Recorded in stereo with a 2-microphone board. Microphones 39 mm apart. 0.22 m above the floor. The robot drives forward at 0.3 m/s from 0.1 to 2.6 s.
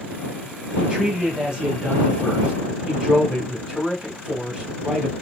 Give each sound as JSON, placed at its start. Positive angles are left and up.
{"t": 0.8, "sound": "a man speaking", "side_deg": -20, "distance_m": 1.0}